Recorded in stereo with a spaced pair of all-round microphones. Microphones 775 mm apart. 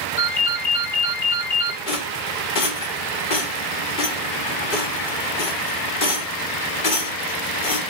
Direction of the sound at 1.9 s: 85° left.